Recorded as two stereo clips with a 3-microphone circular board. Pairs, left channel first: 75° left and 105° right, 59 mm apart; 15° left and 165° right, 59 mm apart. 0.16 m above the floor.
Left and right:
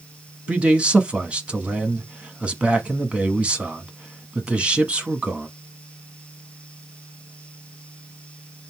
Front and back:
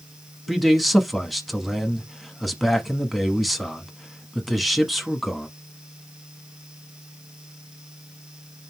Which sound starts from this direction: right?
A man speaking, at 0.5 s.